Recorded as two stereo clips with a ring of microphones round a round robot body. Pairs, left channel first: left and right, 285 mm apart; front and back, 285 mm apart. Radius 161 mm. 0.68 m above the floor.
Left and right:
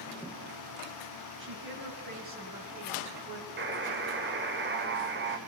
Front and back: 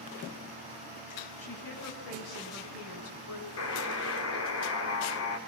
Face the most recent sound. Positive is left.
turn(degrees=-40)